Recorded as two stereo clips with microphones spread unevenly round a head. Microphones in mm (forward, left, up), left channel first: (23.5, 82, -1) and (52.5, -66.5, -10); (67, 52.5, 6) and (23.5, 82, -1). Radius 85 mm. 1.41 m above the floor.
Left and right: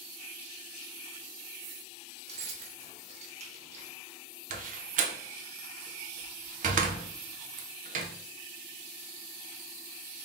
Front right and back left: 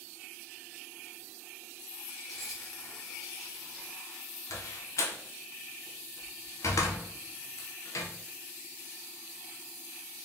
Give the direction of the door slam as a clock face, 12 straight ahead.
2 o'clock.